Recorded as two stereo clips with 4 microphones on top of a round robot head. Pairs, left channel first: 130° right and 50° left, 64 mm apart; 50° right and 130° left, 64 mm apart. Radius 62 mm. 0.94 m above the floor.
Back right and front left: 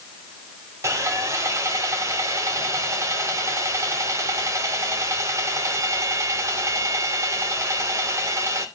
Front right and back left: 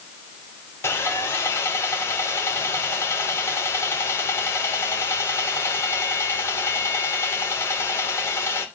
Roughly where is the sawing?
Ahead.